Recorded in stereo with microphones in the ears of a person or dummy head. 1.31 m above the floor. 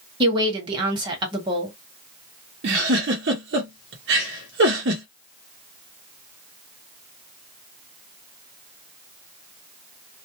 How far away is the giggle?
About 0.9 m.